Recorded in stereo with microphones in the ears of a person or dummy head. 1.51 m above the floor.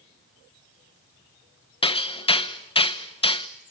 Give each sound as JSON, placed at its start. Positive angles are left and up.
{"t": 1.8, "sound": "hammering", "side_deg": 25, "distance_m": 1.0}